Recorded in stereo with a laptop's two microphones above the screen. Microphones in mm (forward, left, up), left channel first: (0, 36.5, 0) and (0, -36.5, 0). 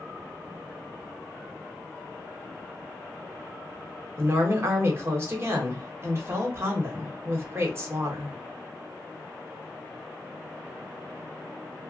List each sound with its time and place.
4.2 s a woman speaking: 35° right (ahead or behind), 1.2 m